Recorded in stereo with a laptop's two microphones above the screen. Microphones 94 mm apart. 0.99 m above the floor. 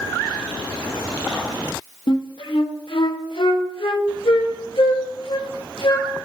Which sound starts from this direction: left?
A flute, at 2.1 s.